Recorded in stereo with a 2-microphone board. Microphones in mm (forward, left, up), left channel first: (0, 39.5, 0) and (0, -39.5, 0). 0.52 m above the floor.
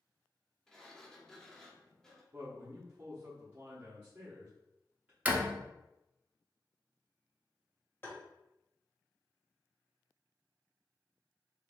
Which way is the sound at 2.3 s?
20° right (ahead or behind).